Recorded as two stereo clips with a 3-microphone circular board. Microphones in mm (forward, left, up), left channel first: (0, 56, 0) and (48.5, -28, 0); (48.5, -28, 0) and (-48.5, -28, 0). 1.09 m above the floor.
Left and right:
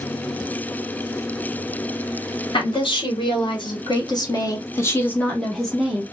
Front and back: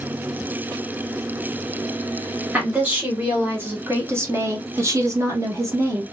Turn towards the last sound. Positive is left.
turn(degrees=-135)